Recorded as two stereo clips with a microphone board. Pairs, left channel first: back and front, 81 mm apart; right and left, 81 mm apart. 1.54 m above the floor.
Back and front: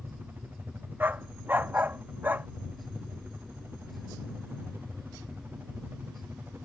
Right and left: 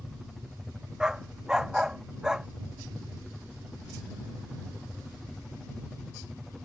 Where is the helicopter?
5° right.